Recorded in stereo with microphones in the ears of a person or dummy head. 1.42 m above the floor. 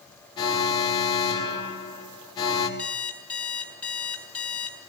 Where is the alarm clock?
10° left (ahead or behind), 5.5 m.